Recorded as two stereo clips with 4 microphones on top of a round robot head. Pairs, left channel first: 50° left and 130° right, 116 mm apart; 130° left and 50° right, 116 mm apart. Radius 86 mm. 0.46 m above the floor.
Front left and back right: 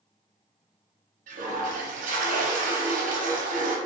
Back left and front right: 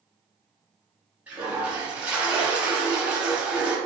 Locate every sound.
1.3 s a toilet flushing: 130° right, 0.7 m